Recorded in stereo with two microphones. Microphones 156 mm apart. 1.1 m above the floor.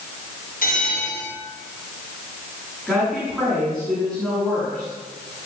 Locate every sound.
0.6 s a bell: 70° left (ahead or behind), 6.5 m
2.9 s a woman speaking: 5° right (ahead or behind), 9 m